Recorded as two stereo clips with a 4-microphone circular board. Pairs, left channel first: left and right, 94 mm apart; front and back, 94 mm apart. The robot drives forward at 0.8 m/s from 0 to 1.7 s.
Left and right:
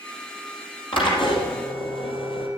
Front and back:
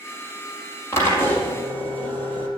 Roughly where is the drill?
Ahead left.